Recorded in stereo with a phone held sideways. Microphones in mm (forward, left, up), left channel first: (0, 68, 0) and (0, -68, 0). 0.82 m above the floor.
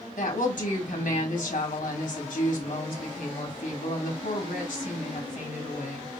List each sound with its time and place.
0.2 s a woman speaking: 75° left (ahead or behind), 2 m